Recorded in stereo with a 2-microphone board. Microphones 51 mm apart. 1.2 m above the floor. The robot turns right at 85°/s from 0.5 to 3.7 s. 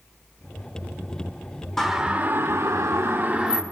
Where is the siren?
10° left (ahead or behind), 3.5 m; by 3.6 s 5° right (ahead or behind), 2.5 m.